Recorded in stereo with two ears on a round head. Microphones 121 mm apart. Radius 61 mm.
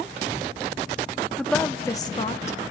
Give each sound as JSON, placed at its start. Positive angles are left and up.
{"t": 1.4, "sound": "a woman speaking", "side_deg": 0, "distance_m": 1.6}